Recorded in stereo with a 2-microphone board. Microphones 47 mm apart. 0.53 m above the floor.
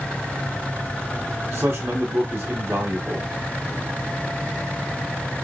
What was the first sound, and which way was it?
A man speaking, 50° right (ahead or behind).